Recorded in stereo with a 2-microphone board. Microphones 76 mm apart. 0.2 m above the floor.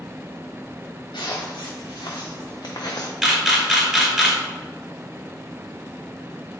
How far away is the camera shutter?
About 1.1 m.